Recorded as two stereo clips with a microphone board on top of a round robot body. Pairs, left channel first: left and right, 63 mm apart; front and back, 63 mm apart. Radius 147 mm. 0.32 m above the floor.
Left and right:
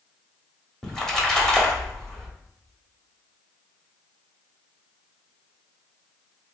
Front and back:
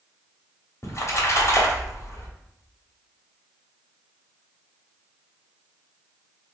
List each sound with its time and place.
0.8 s a splash: 10° left, 1.4 m